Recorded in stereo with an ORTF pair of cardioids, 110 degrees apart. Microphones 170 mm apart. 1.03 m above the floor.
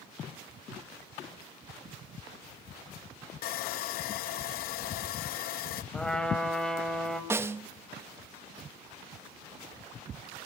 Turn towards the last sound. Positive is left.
turn(degrees=-15)